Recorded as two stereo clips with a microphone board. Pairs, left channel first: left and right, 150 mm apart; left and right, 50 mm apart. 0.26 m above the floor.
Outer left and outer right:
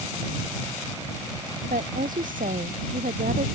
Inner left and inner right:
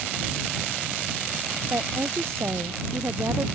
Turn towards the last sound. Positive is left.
turn(degrees=-70)  # may be behind; listen again after turning